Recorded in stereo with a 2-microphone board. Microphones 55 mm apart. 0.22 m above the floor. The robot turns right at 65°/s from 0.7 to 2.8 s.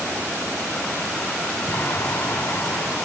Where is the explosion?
55° left, 1.8 m; by 3.0 s 130° left, 1.8 m.